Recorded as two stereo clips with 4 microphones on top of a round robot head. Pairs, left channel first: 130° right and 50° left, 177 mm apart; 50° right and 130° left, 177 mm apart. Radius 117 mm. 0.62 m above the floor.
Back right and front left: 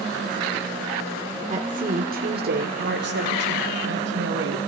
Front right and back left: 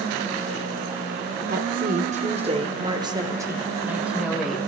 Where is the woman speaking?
95° left, 1.9 m; by 4.7 s 40° left, 2.5 m.